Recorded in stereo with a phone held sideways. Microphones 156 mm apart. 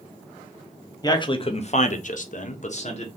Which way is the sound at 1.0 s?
25° left (ahead or behind).